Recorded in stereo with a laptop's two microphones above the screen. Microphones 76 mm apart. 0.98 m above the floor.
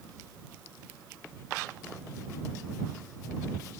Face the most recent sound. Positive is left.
No sound to turn to.